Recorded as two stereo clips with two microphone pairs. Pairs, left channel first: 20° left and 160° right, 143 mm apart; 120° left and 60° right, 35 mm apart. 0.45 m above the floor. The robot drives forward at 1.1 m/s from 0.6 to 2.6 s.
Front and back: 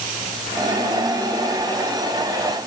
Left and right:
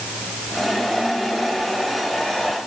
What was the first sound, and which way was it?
Only background noise.